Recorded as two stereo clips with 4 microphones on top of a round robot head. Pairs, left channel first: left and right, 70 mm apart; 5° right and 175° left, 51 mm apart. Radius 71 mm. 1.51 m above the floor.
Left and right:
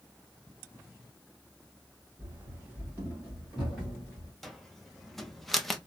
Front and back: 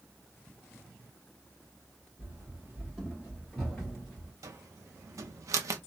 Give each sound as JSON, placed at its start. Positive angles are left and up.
{"t": 2.2, "sound": "running footsteps", "azimuth_deg": -130, "distance_m": 1.6}
{"t": 4.4, "sound": "a cupboard door", "azimuth_deg": 175, "distance_m": 0.7}